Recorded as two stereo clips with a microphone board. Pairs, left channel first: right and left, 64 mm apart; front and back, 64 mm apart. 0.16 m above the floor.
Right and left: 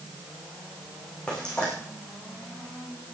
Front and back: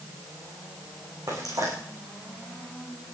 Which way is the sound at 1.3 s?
165° right.